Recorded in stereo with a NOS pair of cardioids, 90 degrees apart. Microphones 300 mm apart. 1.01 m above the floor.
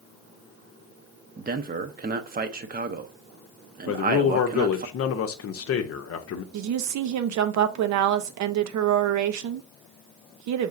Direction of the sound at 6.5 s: 65° right.